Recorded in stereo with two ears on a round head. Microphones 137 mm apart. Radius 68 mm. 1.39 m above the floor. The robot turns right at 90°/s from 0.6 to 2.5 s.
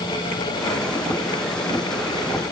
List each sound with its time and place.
Only background noise.